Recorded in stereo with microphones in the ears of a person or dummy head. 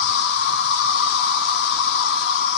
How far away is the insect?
About 0.8 m.